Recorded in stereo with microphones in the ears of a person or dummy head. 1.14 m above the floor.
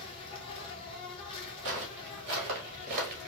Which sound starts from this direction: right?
Footsteps, at 1.6 s.